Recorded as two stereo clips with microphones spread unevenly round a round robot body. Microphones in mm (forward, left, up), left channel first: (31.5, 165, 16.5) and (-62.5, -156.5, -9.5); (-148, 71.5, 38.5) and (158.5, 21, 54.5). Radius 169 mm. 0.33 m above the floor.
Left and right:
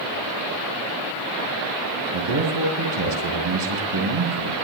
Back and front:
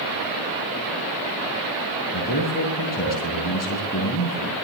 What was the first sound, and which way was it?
A man speaking, 125° right.